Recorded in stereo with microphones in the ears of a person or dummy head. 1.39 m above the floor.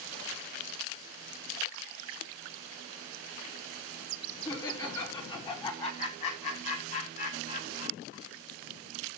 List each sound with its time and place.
4.5 s laughter: 20° left (ahead or behind), 4.5 m; by 8.2 s 50° left (ahead or behind), 5 m